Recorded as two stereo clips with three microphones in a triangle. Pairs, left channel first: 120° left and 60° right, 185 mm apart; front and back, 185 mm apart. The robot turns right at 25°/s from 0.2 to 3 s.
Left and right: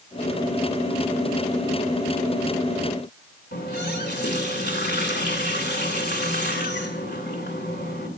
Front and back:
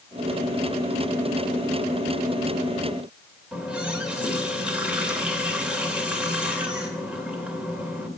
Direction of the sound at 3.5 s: 95° left.